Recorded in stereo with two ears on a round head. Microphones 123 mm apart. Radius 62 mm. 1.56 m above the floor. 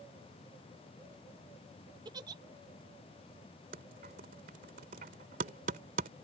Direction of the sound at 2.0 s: 30° right (ahead or behind).